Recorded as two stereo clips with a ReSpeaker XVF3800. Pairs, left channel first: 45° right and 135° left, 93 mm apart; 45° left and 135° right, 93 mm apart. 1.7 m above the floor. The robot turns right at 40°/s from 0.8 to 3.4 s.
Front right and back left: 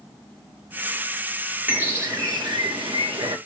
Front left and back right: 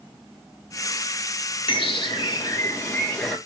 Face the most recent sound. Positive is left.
turn(degrees=130)